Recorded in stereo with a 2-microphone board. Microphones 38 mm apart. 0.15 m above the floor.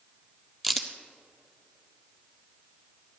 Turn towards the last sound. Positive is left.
turn(degrees=5)  # may be behind; listen again after turning